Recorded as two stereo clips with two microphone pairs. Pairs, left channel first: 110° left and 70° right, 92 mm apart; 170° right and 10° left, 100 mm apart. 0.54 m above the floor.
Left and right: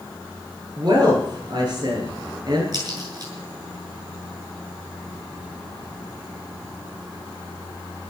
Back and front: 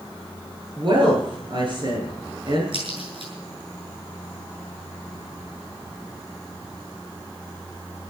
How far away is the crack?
About 7.5 m.